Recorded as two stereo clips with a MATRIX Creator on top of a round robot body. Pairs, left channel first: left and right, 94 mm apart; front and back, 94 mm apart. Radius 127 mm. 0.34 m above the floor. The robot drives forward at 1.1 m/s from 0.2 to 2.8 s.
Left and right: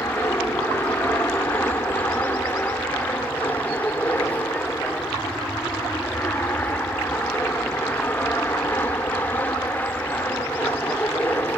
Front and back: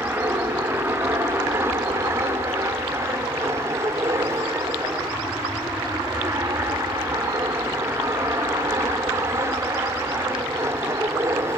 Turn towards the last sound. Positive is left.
turn(degrees=150)